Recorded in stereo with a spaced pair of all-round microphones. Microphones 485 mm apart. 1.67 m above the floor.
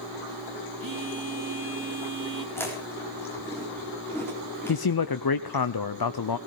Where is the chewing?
5° left (ahead or behind), 4.5 m.